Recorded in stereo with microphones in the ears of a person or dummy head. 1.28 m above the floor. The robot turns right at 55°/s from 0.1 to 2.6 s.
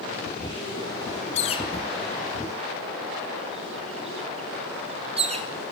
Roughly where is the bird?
Left.